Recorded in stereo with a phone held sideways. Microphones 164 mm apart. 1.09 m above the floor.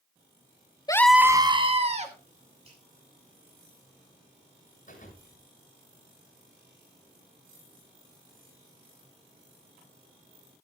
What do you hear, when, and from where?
0.9 s a scream: 25° left (ahead or behind), 0.6 m; by 2.1 s 45° right (ahead or behind), 1.7 m
2.6 s a finger snap: 35° right (ahead or behind), 9.5 m
4.9 s a thud: 50° left (ahead or behind), 8 m